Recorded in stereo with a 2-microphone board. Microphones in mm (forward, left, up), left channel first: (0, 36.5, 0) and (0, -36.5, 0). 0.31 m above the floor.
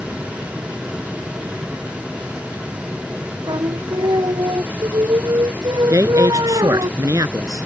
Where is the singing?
70° right (ahead or behind).